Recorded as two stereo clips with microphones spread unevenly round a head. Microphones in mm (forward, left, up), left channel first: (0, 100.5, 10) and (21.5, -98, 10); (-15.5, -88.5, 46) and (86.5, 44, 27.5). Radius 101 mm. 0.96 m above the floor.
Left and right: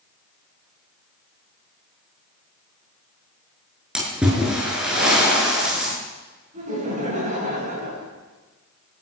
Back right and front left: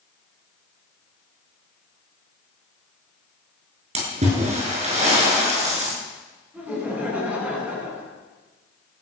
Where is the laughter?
30° right, 9 m.